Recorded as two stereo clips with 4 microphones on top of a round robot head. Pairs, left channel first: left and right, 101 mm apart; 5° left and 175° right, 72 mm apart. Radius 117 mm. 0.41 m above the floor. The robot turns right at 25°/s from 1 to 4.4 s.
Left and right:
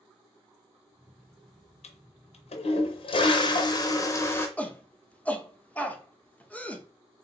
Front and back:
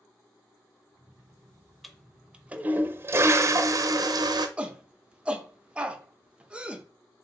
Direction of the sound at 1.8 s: 95° left.